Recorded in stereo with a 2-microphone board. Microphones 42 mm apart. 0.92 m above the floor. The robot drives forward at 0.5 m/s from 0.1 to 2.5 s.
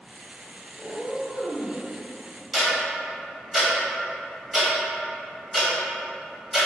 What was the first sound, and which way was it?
A cat meowing, 30° left (ahead or behind).